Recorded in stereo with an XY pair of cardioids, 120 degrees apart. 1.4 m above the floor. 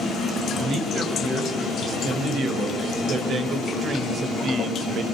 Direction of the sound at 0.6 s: 50° right.